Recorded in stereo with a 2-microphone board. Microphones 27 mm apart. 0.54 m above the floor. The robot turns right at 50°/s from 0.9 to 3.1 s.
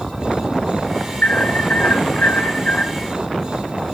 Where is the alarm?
65° left, 8 m; by 2.9 s 155° left, 8 m.